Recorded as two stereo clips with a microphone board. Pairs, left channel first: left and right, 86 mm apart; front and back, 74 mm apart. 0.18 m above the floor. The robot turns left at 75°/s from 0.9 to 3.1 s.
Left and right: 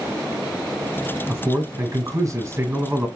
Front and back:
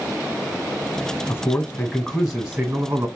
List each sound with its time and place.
1.3 s a man speaking: 15° right, 1.9 m; by 3.1 s 150° right, 1.9 m